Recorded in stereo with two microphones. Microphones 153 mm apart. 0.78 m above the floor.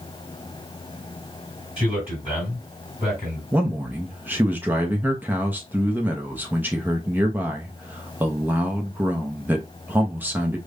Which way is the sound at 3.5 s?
10° right (ahead or behind).